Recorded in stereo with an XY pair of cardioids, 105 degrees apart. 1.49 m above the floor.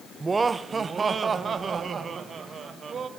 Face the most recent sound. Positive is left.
turn(degrees=-45)